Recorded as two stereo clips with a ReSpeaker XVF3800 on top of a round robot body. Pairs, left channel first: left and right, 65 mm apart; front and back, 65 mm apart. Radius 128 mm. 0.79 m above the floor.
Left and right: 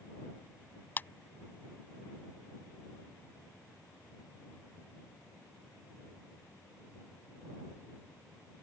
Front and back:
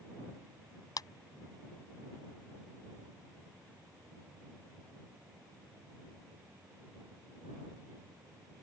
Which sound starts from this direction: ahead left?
A clap, at 1.0 s.